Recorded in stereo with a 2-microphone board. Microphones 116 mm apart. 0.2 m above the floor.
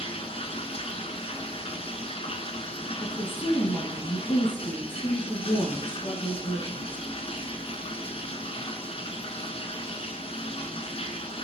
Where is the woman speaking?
45° left (ahead or behind), 2.0 m.